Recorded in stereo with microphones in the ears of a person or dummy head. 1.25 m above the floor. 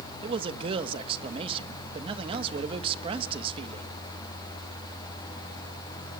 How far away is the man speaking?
About 1.5 m.